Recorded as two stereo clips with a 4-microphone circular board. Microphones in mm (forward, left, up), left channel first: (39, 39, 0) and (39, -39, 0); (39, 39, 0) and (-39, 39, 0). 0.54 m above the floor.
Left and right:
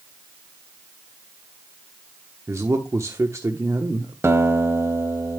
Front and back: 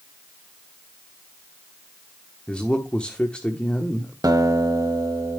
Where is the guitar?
145° right, 1.2 m.